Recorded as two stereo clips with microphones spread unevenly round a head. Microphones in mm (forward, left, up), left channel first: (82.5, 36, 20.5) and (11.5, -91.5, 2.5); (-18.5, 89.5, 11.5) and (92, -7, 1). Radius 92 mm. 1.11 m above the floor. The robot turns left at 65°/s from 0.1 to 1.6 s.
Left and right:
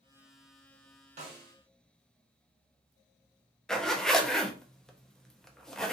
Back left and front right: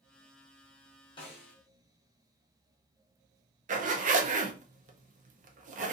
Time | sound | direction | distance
1.2 | a snare drum | 155° right | 0.8 m
3.7 | a zipper | 20° right | 0.5 m